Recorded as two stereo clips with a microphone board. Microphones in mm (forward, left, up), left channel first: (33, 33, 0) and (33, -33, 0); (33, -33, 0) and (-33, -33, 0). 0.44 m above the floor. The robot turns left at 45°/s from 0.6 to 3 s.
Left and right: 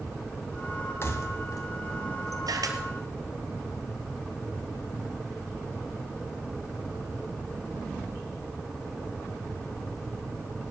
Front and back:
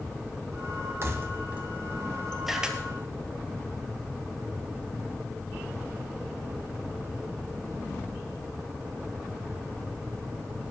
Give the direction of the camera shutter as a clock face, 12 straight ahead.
3 o'clock.